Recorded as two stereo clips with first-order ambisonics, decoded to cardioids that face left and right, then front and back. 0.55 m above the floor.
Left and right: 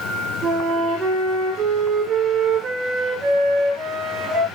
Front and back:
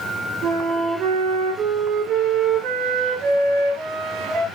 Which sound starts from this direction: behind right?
A flute, at 0.4 s.